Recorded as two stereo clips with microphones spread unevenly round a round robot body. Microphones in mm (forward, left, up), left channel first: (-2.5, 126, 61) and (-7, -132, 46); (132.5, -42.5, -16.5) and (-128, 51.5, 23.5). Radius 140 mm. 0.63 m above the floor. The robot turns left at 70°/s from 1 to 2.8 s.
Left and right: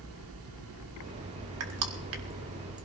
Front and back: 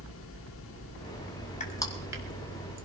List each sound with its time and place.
1.6 s crushing: 80° right, 2.0 m; by 2.9 s 165° right, 2.0 m